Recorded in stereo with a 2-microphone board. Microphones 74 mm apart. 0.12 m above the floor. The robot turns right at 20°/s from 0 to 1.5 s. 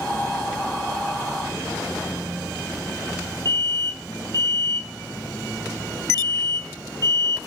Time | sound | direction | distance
3.5 | an alarm | 60° right (ahead or behind) | 3.5 m